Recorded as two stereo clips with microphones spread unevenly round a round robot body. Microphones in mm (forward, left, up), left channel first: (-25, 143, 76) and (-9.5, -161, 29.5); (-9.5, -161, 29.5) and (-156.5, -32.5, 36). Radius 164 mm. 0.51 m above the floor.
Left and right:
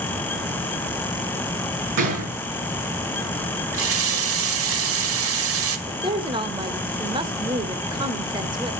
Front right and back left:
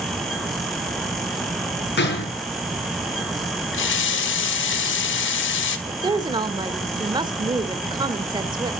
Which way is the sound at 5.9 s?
155° right.